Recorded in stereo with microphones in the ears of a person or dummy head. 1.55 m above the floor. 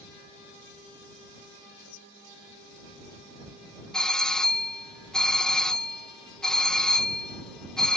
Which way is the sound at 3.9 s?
Centre (ahead or behind).